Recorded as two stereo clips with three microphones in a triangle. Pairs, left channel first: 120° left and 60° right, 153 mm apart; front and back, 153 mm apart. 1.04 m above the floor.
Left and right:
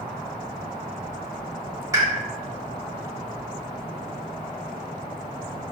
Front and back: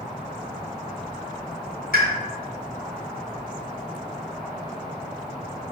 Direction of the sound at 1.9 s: 10° left.